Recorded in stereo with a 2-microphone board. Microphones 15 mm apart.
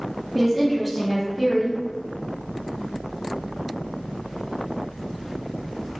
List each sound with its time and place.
0.3 s a woman speaking: centre (ahead or behind), 0.7 m